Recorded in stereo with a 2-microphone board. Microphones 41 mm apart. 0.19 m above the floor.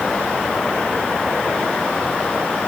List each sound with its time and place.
Only background noise.